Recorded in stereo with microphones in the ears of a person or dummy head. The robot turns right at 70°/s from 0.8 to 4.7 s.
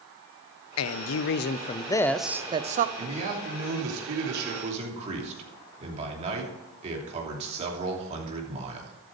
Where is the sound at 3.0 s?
160° right, 3 m; by 8.9 s 35° right, 3 m.